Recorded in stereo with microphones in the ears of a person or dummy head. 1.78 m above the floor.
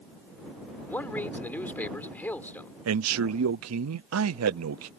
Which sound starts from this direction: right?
A man speaking, at 2.9 s.